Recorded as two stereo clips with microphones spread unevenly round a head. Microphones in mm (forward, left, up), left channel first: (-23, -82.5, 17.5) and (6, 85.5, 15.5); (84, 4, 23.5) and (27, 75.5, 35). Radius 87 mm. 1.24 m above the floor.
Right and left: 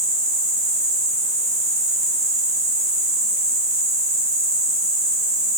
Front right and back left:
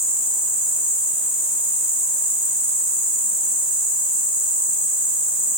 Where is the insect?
25° left, 2.5 m.